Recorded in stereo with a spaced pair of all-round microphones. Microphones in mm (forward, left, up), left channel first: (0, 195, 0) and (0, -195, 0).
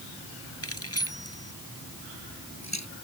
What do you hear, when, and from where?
0.6 s keys jangling: 35° left (ahead or behind); by 2.9 s 45° left (ahead or behind)